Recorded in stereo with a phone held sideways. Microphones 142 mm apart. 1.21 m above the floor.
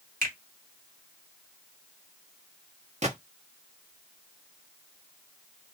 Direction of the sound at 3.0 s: 50° right (ahead or behind).